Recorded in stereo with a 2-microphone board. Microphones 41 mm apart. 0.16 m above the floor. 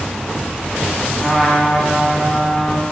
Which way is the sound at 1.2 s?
10° left (ahead or behind).